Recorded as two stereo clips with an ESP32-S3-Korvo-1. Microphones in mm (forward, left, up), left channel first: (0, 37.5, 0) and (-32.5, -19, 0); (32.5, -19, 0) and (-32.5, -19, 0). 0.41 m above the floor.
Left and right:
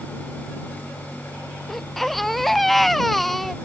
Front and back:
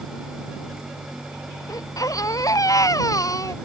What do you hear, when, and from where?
1.7 s a baby crying: 25° right